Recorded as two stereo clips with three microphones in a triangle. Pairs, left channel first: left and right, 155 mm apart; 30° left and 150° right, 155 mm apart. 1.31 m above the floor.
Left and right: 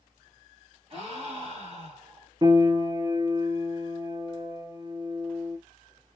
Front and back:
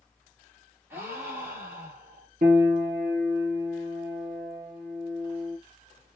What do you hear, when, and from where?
0.9 s a gasp: 85° right, 1.3 m
2.4 s a piano: 155° right, 0.9 m